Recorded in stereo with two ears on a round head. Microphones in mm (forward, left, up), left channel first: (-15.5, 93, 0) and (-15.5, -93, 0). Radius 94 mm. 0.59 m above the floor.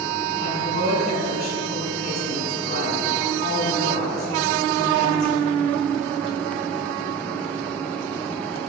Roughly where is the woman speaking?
Left.